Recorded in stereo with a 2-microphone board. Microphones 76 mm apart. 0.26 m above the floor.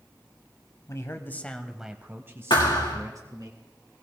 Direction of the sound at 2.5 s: 80° left.